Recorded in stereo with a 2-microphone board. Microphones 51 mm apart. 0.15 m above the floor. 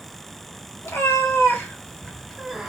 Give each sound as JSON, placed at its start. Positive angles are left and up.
{"t": 0.8, "sound": "a cat meowing", "side_deg": 60, "distance_m": 0.9}